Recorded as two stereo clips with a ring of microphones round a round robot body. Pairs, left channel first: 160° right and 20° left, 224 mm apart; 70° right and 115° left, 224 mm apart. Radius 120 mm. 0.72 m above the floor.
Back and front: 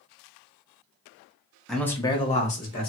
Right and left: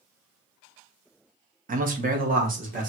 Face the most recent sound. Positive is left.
turn(degrees=160)